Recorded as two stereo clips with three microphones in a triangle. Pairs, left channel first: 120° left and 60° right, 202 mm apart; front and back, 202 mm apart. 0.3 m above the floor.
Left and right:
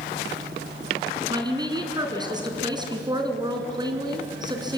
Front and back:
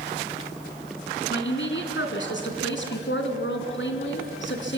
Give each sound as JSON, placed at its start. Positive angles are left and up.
{"t": 1.3, "sound": "a woman speaking", "azimuth_deg": 5, "distance_m": 3.0}